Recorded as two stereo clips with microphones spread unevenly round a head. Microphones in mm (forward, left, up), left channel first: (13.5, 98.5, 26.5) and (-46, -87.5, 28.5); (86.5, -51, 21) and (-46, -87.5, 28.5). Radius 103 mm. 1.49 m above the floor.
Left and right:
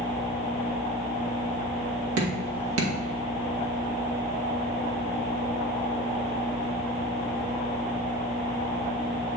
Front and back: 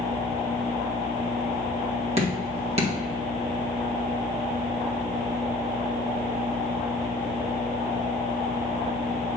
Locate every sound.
2.2 s dripping: 120° right, 2 m